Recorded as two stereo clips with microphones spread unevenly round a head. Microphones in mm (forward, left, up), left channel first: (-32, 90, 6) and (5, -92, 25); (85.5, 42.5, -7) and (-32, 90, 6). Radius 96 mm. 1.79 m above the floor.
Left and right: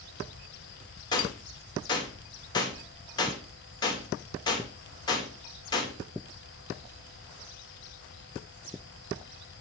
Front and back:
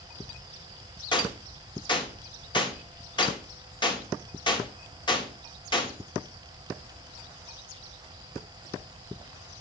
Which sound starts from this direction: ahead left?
A gunshot, at 1.1 s.